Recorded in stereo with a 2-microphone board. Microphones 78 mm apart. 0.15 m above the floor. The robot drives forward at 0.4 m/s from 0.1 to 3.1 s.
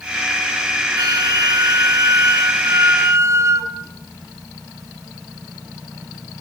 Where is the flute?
55° right (ahead or behind), 1.6 m; by 3.7 s 35° right (ahead or behind), 2 m.